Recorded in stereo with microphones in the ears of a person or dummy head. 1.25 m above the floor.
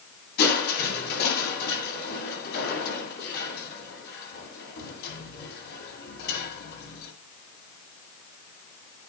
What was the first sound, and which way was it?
Crushing, 60° left (ahead or behind).